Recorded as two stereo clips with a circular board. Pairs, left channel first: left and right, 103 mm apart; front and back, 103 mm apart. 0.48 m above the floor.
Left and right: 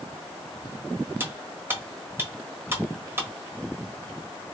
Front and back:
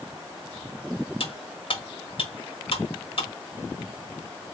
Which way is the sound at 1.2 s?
25° right.